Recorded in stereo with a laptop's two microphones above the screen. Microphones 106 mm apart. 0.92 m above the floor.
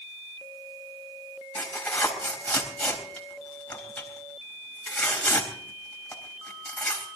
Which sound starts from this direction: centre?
Tearing paper, at 1.6 s.